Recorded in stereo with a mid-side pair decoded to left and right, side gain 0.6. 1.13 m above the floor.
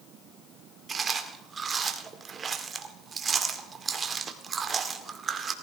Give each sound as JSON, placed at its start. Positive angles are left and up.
{"t": 0.9, "sound": "chewing", "azimuth_deg": -30, "distance_m": 2.0}